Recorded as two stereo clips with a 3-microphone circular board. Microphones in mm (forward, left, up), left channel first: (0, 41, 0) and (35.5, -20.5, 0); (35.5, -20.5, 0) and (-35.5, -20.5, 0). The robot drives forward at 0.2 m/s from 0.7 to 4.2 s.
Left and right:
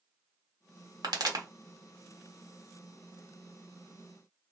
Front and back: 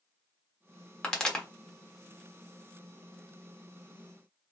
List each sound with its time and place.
1.0 s a pop: 80° right, 1.1 m